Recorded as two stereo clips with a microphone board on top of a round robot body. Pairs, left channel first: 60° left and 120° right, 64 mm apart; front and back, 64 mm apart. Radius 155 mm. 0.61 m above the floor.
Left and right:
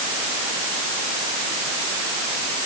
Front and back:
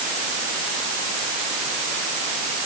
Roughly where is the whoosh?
I don't hear a whoosh.